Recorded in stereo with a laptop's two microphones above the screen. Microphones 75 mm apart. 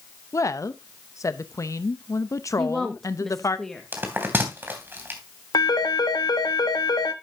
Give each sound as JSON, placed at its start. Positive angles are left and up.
{"t": 0.3, "sound": "a woman speaking", "side_deg": 45, "distance_m": 0.7}
{"t": 2.6, "sound": "a woman speaking", "side_deg": 5, "distance_m": 1.5}
{"t": 3.9, "sound": "a bell", "side_deg": -30, "distance_m": 3.0}
{"t": 5.5, "sound": "a phone ringing", "side_deg": 65, "distance_m": 1.1}